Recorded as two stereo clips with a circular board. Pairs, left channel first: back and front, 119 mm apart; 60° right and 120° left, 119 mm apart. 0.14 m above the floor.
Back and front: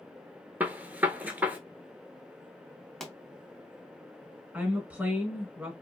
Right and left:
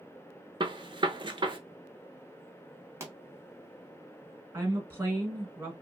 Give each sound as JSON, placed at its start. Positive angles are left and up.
{"t": 0.6, "sound": "a gunshot", "azimuth_deg": 75, "distance_m": 0.6}
{"t": 3.0, "sound": "a pop", "azimuth_deg": 100, "distance_m": 0.8}
{"t": 4.5, "sound": "a woman speaking", "azimuth_deg": 65, "distance_m": 1.1}